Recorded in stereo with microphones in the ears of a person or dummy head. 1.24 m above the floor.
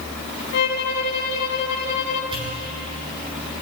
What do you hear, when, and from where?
0.5 s a violin: 55° left (ahead or behind), 1.1 m
2.3 s a pop: 35° right (ahead or behind), 7 m